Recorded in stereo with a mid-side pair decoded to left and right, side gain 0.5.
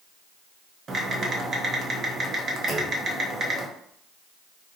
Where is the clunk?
45° right, 1.1 m.